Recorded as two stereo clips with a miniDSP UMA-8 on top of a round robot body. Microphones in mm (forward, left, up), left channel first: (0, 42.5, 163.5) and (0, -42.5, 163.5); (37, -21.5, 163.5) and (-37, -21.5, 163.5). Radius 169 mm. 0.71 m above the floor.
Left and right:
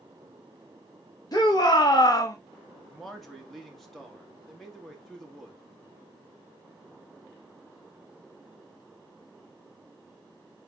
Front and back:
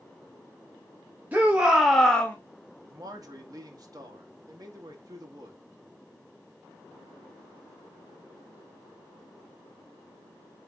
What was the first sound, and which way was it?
A shout, 115° left.